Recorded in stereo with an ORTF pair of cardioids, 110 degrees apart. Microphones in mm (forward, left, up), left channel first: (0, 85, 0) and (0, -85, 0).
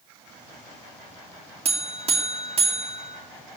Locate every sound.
1.6 s a buzzer: 35° right, 2.5 m